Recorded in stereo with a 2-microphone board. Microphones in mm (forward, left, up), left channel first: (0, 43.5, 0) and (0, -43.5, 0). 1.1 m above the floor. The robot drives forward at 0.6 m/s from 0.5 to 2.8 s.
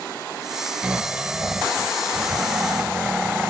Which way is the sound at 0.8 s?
15° right (ahead or behind).